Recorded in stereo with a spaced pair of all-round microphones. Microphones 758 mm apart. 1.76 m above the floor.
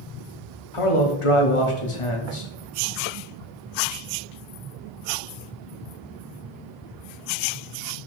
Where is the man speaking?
45° left (ahead or behind), 0.9 m.